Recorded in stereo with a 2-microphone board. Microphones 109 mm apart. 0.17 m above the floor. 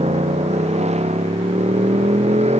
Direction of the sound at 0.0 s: 85° right.